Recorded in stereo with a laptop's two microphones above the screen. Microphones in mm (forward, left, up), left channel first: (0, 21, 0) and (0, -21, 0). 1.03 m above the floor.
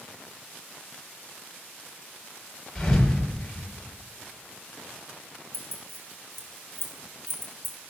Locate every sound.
2.8 s a thud: 15° left (ahead or behind), 4 m
5.5 s keys jangling: 75° right (ahead or behind), 1.6 m